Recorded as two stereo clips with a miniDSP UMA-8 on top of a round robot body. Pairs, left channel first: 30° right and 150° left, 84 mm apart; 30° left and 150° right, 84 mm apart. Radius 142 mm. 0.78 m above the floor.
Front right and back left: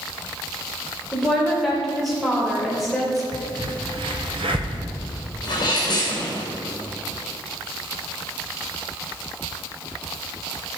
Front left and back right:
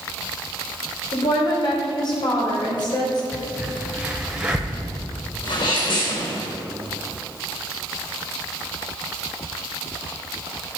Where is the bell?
I don't hear a bell.